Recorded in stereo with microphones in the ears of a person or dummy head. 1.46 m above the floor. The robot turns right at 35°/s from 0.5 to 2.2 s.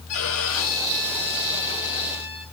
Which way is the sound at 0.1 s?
95° left.